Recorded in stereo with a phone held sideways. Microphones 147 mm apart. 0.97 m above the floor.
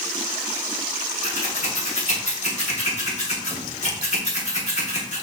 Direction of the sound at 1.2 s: 50° left (ahead or behind).